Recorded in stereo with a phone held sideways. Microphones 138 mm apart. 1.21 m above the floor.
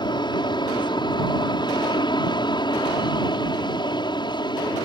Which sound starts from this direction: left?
An aircraft, at 0.0 s.